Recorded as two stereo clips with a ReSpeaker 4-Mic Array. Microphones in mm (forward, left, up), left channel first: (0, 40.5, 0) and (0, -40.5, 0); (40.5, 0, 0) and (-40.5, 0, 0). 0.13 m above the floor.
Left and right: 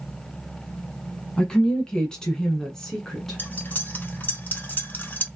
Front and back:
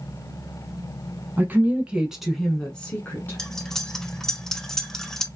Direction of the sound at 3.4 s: 75° left.